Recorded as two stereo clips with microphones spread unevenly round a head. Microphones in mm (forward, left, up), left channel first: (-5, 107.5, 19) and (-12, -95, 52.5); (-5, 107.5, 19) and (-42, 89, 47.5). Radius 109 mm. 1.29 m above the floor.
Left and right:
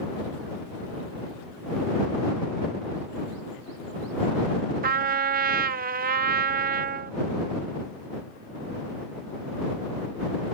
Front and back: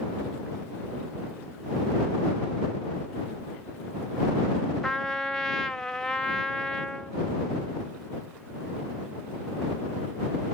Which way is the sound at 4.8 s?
40° right.